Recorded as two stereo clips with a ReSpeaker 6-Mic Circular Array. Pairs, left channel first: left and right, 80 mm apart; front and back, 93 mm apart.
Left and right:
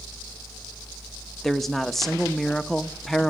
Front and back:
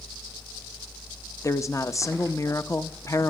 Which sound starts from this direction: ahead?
A woman speaking, at 1.4 s.